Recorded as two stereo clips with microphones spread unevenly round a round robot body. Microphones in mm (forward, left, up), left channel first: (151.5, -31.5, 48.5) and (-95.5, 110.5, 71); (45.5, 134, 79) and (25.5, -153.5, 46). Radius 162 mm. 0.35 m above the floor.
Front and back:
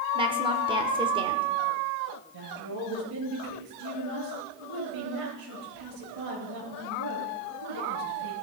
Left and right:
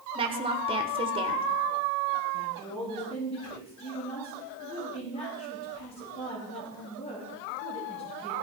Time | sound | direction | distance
0.1 | a woman speaking | 140° right | 1.4 m
2.3 | a woman speaking | 160° left | 7 m